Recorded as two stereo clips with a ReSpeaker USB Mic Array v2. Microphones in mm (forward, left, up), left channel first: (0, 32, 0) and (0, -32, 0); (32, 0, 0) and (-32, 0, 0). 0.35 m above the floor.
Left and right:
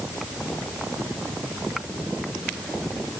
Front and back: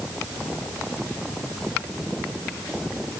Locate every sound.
Only background noise.